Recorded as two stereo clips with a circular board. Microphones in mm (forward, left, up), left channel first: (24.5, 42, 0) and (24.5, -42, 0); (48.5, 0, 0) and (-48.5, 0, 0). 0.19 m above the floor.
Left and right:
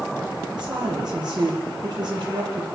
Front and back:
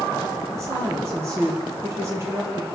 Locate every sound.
0.5 s a woman speaking: 120° right, 5.5 m